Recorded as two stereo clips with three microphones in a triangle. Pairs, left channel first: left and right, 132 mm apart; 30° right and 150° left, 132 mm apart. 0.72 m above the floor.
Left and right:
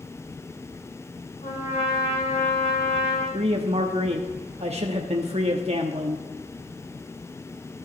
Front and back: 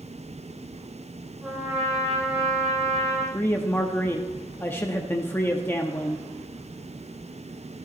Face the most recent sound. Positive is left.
turn(degrees=-100)